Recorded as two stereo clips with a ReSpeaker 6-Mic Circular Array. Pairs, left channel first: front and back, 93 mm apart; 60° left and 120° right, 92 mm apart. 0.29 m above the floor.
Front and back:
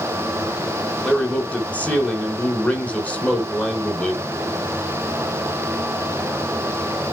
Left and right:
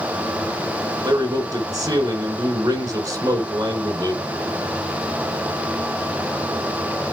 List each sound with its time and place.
1.0 s a man speaking: 75° right, 3.5 m